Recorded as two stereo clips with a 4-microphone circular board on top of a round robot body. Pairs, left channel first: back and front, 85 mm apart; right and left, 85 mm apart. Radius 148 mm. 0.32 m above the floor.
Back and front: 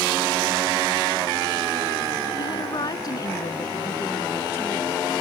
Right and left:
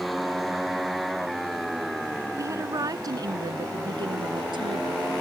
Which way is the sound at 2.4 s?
145° left.